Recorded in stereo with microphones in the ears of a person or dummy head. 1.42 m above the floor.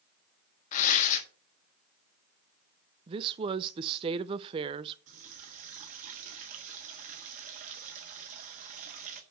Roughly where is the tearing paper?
Left.